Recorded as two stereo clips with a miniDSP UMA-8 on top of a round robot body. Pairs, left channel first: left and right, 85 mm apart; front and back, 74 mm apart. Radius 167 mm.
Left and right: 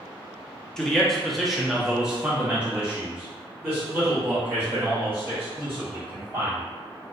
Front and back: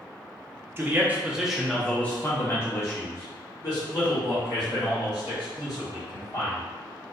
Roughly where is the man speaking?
Behind.